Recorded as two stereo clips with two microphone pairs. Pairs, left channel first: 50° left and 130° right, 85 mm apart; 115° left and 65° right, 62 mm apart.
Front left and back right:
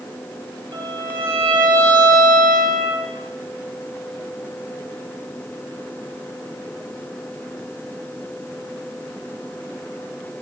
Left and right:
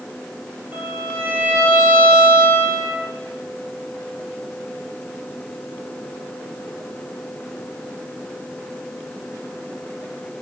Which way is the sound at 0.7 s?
120° right.